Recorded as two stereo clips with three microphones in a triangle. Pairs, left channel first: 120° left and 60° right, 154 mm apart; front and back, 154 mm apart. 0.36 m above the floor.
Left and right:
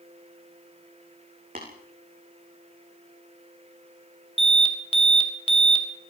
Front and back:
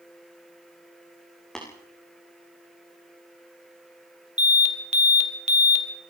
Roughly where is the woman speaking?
I don't hear a woman speaking.